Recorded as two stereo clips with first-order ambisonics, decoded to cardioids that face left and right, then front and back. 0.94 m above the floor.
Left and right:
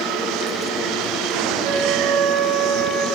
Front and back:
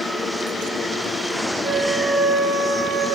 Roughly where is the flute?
Right.